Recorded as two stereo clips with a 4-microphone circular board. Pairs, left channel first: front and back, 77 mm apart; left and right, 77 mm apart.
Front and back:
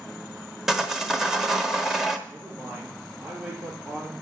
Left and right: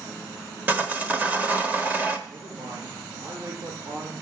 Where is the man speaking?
105° right, 4 m.